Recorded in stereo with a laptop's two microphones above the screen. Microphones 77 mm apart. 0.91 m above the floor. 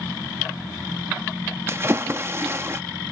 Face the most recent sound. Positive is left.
turn(degrees=-35)  # may be behind; listen again after turning